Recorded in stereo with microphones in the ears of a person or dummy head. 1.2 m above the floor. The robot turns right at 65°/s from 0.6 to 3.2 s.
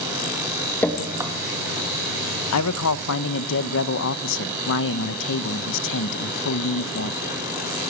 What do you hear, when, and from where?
0.8 s dripping: 10° left (ahead or behind), 2.5 m; by 1.3 s 20° right (ahead or behind), 2.5 m
2.5 s a man speaking: 75° left, 0.8 m; by 7.2 s 120° left, 0.8 m